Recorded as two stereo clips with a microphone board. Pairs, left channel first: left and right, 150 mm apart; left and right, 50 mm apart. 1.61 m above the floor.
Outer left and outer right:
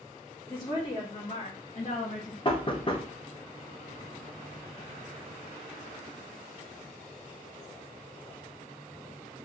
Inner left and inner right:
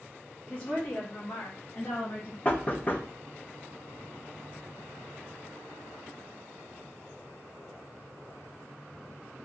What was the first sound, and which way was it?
A woman speaking, 20° left (ahead or behind).